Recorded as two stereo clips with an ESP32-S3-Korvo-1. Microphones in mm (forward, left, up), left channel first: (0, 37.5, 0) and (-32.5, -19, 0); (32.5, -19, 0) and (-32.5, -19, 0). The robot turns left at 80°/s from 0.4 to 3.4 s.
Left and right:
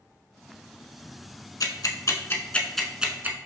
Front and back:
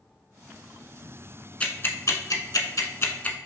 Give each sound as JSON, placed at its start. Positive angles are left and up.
{"t": 1.6, "sound": "ticking", "azimuth_deg": 70, "distance_m": 0.5}